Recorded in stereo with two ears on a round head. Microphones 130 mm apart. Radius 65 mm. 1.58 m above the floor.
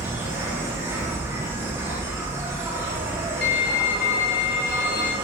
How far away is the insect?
About 0.8 m.